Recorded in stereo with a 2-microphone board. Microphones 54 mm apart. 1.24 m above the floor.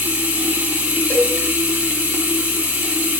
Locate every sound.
0.0 s running water: 25° right (ahead or behind), 1.7 m
1.1 s a cowbell: 50° left (ahead or behind), 2 m